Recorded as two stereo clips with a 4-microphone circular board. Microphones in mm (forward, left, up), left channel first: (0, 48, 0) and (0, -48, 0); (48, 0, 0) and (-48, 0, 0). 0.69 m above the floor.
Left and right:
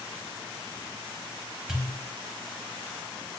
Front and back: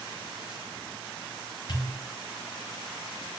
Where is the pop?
5° right, 0.7 m.